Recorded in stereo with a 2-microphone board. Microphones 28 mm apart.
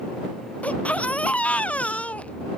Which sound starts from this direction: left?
A baby crying, at 0.6 s.